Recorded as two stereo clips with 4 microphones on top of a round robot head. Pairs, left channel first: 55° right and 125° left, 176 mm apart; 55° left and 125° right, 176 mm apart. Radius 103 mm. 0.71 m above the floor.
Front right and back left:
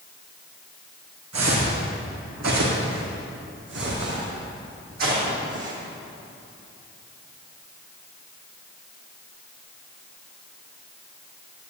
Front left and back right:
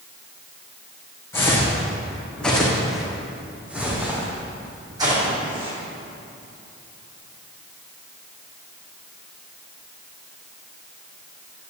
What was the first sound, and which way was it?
Footsteps, 130° left.